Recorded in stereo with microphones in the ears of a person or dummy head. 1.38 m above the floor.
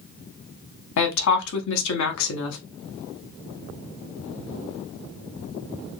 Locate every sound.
1.0 s a woman speaking: 70° left (ahead or behind), 0.8 m